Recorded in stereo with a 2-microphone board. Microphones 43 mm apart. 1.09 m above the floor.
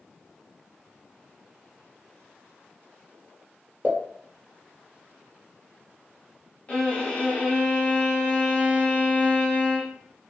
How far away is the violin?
About 0.9 m.